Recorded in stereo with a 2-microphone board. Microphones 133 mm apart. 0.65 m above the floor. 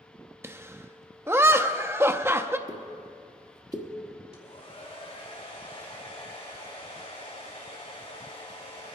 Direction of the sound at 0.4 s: 20° right (ahead or behind).